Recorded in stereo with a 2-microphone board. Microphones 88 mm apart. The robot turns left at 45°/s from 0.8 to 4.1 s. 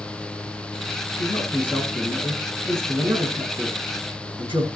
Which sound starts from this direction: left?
A man speaking, at 1.2 s.